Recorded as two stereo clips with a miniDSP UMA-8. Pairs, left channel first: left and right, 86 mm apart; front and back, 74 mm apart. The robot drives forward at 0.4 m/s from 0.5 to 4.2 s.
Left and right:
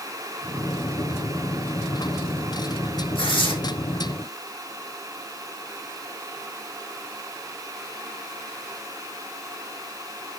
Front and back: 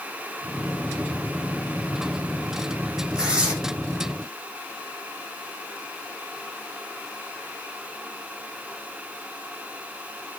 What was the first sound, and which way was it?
Tearing paper, 100° left.